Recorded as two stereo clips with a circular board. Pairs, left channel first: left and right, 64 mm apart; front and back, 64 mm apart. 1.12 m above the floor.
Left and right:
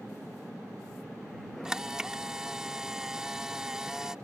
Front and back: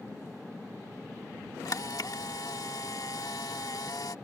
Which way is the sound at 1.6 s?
10° right.